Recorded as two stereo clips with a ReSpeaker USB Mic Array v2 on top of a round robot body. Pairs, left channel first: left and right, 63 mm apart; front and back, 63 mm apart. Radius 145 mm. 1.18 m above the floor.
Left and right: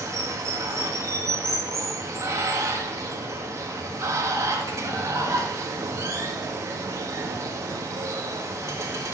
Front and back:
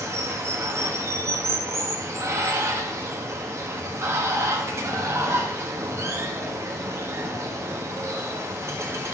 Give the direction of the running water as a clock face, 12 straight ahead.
4 o'clock.